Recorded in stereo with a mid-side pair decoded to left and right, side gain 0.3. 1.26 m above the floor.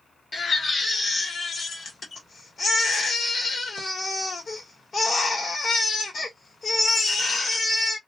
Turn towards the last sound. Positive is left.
turn(degrees=60)